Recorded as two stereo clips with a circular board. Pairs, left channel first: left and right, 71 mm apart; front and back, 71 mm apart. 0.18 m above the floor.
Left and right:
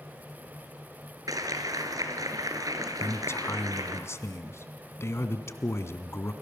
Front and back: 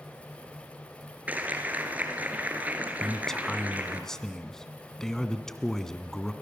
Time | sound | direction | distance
1.3 | a clap | 115° right | 2.5 m
3.0 | a man speaking | 80° left | 1.6 m